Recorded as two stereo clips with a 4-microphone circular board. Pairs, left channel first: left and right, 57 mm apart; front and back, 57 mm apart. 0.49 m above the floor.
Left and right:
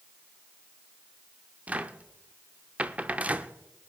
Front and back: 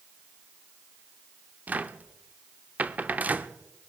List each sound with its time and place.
1.7 s a cupboard door: 140° right, 0.6 m